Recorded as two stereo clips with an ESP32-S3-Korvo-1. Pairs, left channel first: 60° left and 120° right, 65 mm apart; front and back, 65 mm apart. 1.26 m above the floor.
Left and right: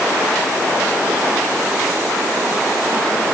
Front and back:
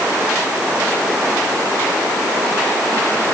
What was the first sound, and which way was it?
Only background noise.